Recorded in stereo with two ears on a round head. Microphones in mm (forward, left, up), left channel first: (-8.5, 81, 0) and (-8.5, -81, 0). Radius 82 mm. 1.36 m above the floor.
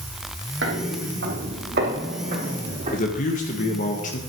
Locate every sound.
0.6 s footsteps: 70° right (ahead or behind), 3.5 m; by 3.0 s 40° right (ahead or behind), 4 m
2.9 s a man speaking: 45° left (ahead or behind), 1.7 m